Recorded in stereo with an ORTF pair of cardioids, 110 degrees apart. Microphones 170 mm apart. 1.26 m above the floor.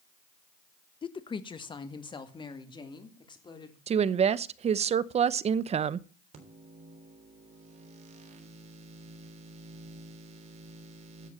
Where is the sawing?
No sawing in this recording.